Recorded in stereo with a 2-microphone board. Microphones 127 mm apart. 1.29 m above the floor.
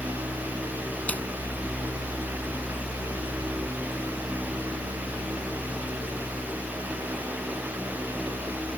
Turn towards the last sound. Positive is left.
turn(degrees=15)  # may be behind; listen again after turning